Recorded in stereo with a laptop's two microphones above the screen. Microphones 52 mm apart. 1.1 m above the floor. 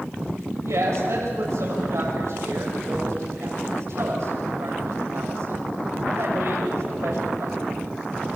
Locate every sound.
0.6 s a woman speaking: 70° right (ahead or behind), 6.5 m